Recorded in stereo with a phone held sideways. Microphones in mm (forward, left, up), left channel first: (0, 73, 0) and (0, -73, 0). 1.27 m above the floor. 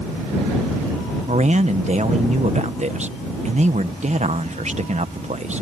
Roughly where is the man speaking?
Right.